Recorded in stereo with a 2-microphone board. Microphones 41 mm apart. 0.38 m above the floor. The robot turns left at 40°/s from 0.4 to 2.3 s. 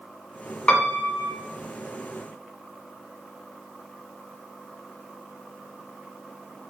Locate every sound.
0.7 s a piano: 25° left (ahead or behind), 0.8 m; by 1.3 s 55° left (ahead or behind), 0.8 m